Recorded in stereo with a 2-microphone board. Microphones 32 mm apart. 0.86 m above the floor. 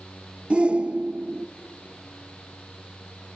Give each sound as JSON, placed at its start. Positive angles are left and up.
{"t": 0.5, "sound": "a shout", "side_deg": -35, "distance_m": 0.7}